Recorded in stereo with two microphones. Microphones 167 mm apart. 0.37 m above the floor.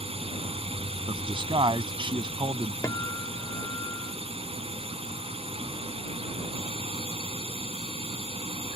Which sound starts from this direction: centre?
A guitar, at 2.8 s.